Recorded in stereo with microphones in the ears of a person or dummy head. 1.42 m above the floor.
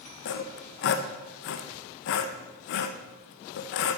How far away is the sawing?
About 0.8 m.